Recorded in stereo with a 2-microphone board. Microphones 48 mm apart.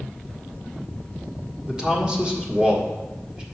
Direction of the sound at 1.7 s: 20° right (ahead or behind).